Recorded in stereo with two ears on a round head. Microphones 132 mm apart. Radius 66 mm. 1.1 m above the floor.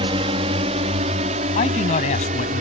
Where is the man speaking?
45° left (ahead or behind).